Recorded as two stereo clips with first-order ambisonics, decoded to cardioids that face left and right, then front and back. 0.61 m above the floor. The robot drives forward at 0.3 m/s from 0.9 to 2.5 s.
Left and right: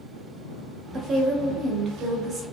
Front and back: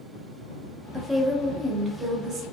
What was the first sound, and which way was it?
A woman speaking, 75° right.